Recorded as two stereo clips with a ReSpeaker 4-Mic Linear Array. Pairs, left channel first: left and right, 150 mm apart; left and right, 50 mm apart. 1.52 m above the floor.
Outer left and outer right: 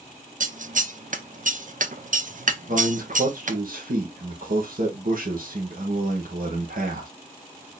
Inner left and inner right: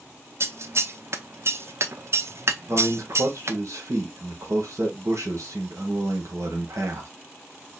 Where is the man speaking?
70° right (ahead or behind), 1.3 m.